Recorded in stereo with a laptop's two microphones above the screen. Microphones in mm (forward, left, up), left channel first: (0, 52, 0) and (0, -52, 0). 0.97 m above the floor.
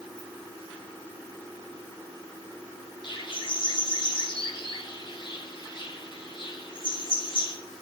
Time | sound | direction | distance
0.2 | a ringtone | 65° left (ahead or behind) | 7.5 m
3.0 | a bird | 50° left (ahead or behind) | 2 m